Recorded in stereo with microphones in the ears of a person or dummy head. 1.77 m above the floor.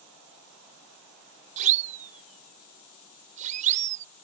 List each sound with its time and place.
1.6 s a siren: 40° right (ahead or behind)